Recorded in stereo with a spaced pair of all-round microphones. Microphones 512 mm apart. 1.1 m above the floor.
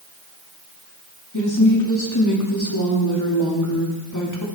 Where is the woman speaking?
35° left (ahead or behind), 2.5 m.